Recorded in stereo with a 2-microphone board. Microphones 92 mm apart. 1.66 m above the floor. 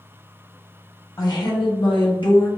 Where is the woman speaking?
45° left (ahead or behind), 1.0 m; by 2.5 s 60° left (ahead or behind), 1.0 m.